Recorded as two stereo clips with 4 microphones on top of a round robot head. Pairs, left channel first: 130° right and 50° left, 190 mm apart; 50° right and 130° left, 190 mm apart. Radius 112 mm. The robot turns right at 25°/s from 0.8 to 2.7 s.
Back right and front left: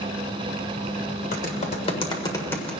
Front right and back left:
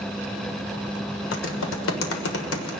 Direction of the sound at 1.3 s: 80° right.